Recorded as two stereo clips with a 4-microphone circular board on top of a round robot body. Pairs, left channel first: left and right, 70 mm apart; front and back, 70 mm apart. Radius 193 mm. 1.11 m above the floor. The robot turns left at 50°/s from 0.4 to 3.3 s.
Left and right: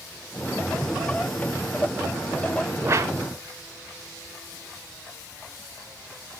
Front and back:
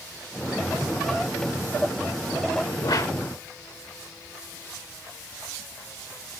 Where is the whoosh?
30° right, 1.3 m; by 3.1 s 45° right, 1.3 m.